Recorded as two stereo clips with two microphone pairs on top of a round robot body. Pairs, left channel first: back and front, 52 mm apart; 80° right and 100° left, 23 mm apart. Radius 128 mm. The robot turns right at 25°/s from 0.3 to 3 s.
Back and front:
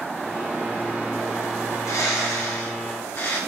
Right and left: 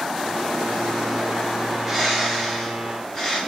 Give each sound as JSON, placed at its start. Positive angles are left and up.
{"t": 1.6, "sound": "a bird", "azimuth_deg": 175, "distance_m": 5.0}